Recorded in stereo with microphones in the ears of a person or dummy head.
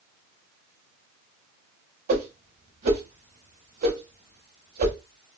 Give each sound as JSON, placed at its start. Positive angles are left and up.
{"t": 2.1, "sound": "a whoosh", "side_deg": -50, "distance_m": 0.8}